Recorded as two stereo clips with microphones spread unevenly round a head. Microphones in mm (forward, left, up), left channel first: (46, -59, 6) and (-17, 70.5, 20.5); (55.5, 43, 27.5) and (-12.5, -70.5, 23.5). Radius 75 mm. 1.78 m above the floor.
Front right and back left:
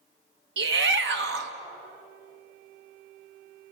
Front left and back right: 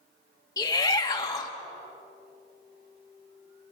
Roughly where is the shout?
Behind left.